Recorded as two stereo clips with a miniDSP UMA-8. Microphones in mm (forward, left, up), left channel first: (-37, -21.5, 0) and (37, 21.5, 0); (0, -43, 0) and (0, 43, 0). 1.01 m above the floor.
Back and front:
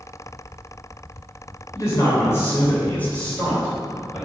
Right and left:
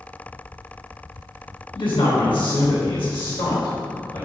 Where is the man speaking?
95° right, 3.5 m; by 4.3 s 65° right, 3.5 m.